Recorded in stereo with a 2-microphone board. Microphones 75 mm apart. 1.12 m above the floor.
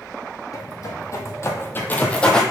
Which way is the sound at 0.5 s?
50° left (ahead or behind).